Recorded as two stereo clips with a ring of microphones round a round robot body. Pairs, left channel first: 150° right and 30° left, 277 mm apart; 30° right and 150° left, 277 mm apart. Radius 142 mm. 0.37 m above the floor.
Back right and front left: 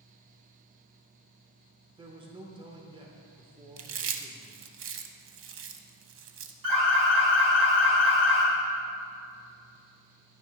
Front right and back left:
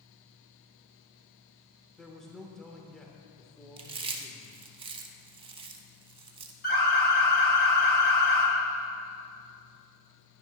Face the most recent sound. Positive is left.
turn(degrees=30)